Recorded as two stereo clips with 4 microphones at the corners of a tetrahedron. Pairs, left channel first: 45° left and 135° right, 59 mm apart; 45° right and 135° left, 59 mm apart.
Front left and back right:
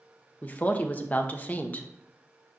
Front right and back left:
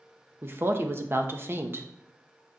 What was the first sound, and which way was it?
A woman speaking, 100° left.